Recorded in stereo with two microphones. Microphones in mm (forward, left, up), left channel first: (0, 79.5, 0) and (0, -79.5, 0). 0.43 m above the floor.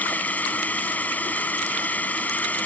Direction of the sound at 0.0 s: 10° left (ahead or behind).